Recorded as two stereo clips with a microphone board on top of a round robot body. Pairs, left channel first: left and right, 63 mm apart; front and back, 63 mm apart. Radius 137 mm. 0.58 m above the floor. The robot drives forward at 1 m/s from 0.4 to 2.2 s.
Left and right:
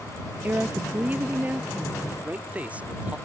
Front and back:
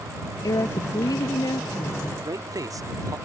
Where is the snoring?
No snoring in this recording.